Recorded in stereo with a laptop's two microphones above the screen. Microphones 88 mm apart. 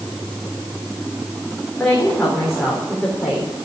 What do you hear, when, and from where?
1.8 s a woman speaking: 5° left (ahead or behind), 3.5 m; by 3.5 s 10° right (ahead or behind), 4 m